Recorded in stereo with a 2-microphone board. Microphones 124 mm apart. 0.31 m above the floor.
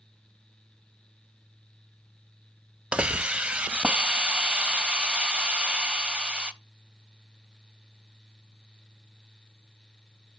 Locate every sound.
2.9 s a hiss: 10° right (ahead or behind), 0.5 m